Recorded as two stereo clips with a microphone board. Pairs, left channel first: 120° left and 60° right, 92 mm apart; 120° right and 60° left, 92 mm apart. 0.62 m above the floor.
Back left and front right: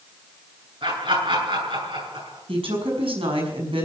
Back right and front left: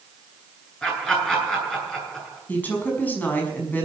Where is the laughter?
40° right, 9 m.